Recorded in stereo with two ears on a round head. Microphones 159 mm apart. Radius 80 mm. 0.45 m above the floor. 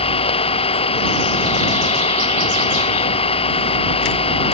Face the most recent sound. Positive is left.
turn(degrees=30)  # may be behind; listen again after turning